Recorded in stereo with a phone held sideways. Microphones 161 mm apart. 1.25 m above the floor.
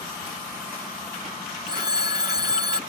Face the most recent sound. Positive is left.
turn(degrees=-25)  # may be behind; listen again after turning